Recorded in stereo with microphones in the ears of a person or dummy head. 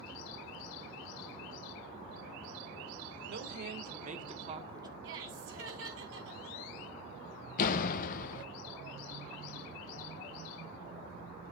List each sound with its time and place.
3.3 s a woman speaking: 60° right (ahead or behind), 1.8 m; by 4.9 s 15° right (ahead or behind), 1.3 m
5.0 s laughter: 75° right (ahead or behind), 4 m
7.6 s a door slam: 50° left (ahead or behind), 0.6 m